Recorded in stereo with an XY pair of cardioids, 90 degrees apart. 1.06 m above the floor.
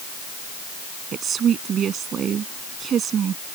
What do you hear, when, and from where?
1.1 s a woman speaking: 65° right